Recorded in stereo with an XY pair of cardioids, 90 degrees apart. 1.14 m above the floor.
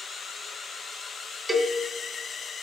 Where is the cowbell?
20° right, 1.7 m.